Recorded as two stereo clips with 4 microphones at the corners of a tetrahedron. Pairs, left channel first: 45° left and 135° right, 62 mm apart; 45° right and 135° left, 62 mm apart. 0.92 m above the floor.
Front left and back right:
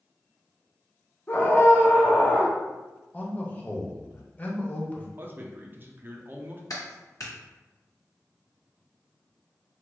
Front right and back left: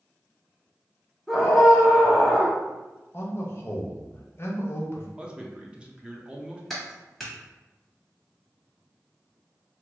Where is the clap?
40° left, 1.3 m.